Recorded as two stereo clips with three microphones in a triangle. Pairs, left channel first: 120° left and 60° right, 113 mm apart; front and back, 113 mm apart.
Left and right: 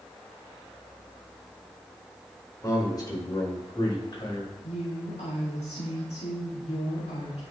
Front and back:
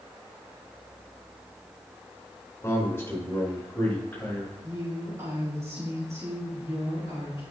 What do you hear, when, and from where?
2.6 s a man speaking: 65° left, 5 m; by 4.5 s 75° left, 7 m
4.6 s a woman speaking: 115° left, 5.5 m